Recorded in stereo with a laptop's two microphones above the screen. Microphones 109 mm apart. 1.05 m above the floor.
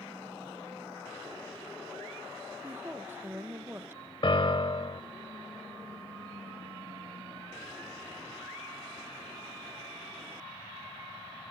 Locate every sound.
2.6 s a woman speaking: 20° right (ahead or behind), 1.0 m
4.2 s a piano: 50° left (ahead or behind), 1.1 m